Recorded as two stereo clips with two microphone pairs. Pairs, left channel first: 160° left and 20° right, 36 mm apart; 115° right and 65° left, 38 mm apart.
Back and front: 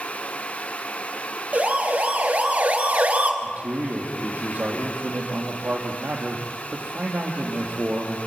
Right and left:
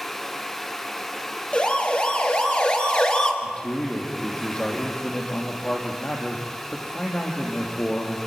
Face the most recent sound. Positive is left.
turn(degrees=-55)